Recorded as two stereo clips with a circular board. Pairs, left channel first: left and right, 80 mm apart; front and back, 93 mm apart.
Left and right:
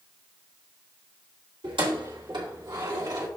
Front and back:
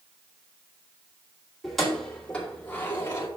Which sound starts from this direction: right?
Keys jangling, at 1.6 s.